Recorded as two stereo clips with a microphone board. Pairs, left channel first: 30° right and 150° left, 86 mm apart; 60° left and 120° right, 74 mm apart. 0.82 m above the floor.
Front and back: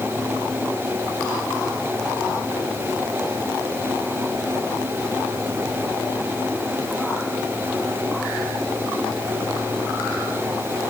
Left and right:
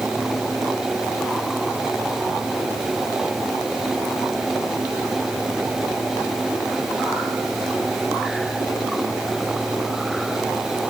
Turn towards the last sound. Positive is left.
No sound to turn to.